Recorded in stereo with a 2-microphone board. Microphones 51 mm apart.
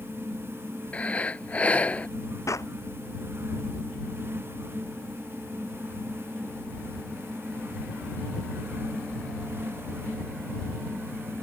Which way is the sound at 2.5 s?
75° left (ahead or behind).